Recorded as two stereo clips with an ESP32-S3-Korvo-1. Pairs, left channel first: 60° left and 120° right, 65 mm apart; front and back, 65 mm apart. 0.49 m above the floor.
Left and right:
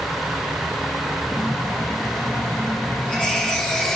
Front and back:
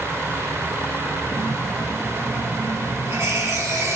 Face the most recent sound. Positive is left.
turn(degrees=135)